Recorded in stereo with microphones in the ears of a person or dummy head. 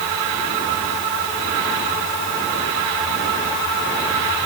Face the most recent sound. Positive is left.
No sound to turn to.